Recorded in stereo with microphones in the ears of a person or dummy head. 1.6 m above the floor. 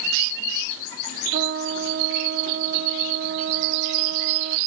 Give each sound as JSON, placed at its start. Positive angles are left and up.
{"t": 1.3, "sound": "a trumpet", "side_deg": -45}